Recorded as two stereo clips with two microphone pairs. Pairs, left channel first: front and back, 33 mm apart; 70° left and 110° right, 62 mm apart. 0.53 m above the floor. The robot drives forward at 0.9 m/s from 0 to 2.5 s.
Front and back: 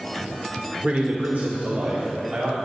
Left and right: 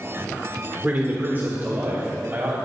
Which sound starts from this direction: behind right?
A man speaking, at 0.8 s.